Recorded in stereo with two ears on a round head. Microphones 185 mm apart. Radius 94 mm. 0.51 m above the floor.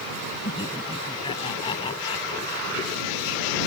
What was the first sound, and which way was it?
Laughter, 20° left (ahead or behind).